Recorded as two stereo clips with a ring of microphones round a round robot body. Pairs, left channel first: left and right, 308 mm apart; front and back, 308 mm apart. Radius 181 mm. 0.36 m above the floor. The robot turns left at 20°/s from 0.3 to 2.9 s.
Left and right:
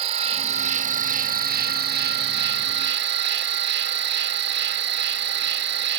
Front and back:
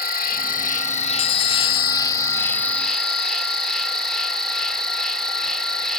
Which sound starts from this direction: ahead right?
An insect, at 0.0 s.